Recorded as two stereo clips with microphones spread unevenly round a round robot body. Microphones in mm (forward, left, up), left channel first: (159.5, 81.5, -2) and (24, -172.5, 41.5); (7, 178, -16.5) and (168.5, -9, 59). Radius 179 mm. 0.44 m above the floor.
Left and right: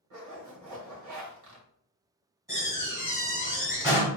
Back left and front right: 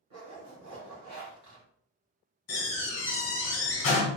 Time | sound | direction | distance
0.1 | a zipper | 95° right | 1.3 m
2.5 | a door slam | 160° left | 1.3 m